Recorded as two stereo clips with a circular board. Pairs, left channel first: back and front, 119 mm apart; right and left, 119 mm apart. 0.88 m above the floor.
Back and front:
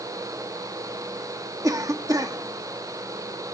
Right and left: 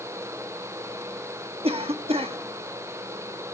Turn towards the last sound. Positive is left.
turn(degrees=60)